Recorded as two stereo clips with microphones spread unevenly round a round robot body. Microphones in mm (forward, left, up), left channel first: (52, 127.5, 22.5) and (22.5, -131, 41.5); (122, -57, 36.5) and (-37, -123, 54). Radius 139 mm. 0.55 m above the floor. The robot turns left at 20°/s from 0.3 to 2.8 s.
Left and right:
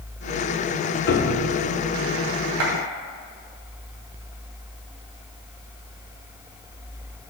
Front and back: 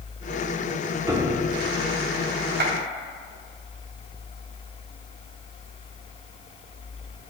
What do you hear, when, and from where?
1.1 s a piano: 125° left, 0.8 m; by 1.6 s 115° left, 0.8 m
2.6 s a clap: 135° right, 2.5 m; by 2.7 s 140° right, 2.5 m